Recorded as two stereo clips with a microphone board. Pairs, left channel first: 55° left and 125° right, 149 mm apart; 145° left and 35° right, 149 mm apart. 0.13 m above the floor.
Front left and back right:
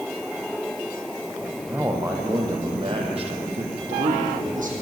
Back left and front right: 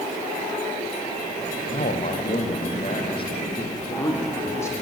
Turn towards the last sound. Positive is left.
turn(degrees=-145)